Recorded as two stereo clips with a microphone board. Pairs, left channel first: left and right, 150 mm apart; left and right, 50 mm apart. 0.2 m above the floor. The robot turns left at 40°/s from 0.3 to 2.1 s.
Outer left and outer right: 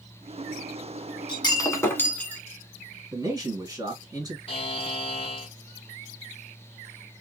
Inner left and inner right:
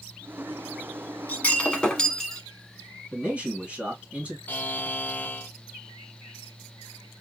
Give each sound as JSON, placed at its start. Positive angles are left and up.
{"t": 1.3, "sound": "breaking glass", "azimuth_deg": 45, "distance_m": 1.1}
{"t": 3.1, "sound": "a man speaking", "side_deg": -25, "distance_m": 2.5}
{"t": 4.5, "sound": "a buzzer", "side_deg": 40, "distance_m": 0.6}